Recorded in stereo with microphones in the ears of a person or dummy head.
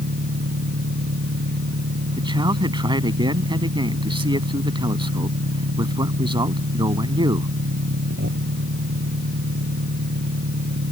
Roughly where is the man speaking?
Right.